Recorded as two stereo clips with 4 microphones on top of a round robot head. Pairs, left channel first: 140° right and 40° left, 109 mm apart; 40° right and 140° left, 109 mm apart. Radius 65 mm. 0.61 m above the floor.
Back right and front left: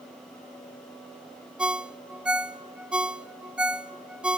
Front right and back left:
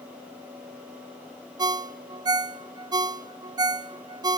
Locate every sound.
1.6 s a ringtone: 115° left, 0.6 m